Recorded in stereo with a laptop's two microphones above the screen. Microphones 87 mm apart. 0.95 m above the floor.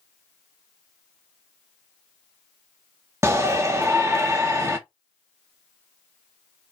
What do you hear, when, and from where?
3.2 s a shout: 30° right (ahead or behind), 0.7 m